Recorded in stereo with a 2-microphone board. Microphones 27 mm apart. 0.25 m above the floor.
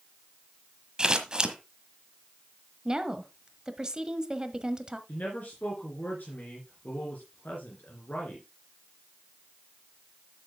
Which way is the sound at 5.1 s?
70° left (ahead or behind).